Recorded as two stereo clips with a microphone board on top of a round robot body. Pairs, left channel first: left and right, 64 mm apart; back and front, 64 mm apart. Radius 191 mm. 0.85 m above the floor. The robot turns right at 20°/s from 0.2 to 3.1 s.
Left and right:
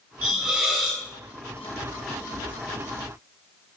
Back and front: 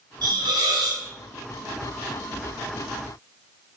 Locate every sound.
0.2 s a hiss: 15° right, 1.3 m; by 1.0 s straight ahead, 1.3 m